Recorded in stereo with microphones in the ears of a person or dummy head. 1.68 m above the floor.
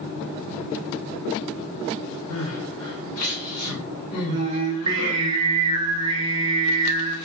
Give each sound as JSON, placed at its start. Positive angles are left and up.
{"t": 2.3, "sound": "crying", "side_deg": 80, "distance_m": 0.9}
{"t": 4.3, "sound": "singing", "side_deg": -25, "distance_m": 0.7}